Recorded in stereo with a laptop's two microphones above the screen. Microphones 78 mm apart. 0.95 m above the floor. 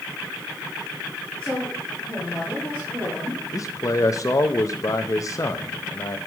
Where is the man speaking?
45° left (ahead or behind), 0.6 m.